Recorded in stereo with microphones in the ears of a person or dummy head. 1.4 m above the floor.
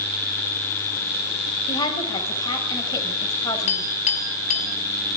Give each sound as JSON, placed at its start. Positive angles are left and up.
{"t": 1.7, "sound": "a woman speaking", "side_deg": 30, "distance_m": 7.0}
{"t": 3.7, "sound": "a clink", "side_deg": 45, "distance_m": 7.0}